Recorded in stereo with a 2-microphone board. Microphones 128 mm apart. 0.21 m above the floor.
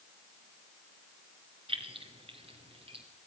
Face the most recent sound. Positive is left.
turn(degrees=-50)  # may be behind; listen again after turning